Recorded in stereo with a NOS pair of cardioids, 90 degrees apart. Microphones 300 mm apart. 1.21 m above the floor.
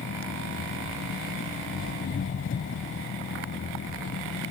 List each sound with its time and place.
0.0 s an engine running: 45° left